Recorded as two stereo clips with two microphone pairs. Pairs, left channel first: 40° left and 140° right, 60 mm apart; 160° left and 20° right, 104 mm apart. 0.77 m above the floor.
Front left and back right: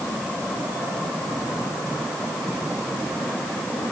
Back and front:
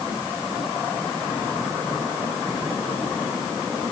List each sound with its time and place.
Only background noise.